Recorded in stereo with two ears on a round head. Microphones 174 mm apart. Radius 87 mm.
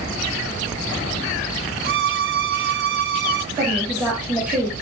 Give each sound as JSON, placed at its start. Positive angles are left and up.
{"t": 1.8, "sound": "a violin", "side_deg": -55, "distance_m": 1.2}
{"t": 3.5, "sound": "a woman speaking", "side_deg": -10, "distance_m": 5.5}